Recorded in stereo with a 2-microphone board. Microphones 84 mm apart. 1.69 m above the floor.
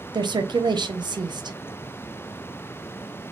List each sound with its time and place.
0.1 s a woman speaking: 60° right (ahead or behind), 0.6 m